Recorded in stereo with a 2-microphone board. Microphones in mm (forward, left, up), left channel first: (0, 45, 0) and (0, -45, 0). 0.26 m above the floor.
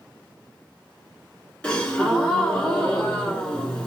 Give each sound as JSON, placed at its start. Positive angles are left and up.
{"t": 1.6, "sound": "a gasp", "side_deg": 10, "distance_m": 1.0}